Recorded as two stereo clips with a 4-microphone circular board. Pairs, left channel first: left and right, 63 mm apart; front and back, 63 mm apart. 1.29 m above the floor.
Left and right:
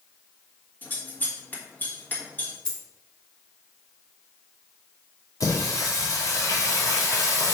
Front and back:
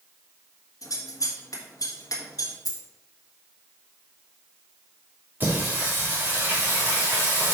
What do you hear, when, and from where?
0.8 s scissors: 30° left, 1.8 m
2.6 s a dropped coin: 15° left, 1.8 m
5.4 s singing: 120° left, 2.5 m